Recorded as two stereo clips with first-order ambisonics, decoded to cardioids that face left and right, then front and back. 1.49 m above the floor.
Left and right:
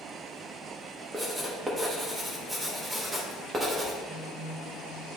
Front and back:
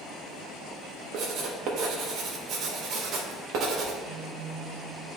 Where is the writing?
170° right, 1.1 m.